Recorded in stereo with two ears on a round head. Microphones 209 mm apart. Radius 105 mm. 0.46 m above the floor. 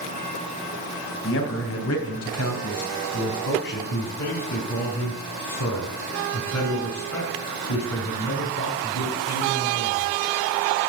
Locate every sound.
1.2 s a man speaking: 55° left (ahead or behind), 3 m; by 3.8 s 45° left (ahead or behind), 3.5 m
3.9 s a man speaking: 65° left (ahead or behind), 4 m